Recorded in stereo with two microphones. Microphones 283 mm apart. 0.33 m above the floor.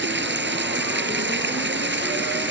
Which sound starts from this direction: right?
Running water, at 0.0 s.